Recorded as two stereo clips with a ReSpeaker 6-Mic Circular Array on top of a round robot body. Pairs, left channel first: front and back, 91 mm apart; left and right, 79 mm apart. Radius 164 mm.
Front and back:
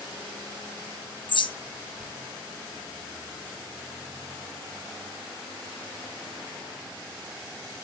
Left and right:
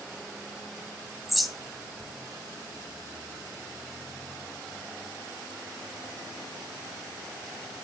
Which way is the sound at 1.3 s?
Straight ahead.